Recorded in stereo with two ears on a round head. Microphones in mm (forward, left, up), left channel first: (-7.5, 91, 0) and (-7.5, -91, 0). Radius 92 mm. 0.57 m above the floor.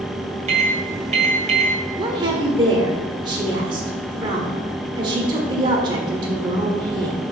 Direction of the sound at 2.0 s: 20° right (ahead or behind).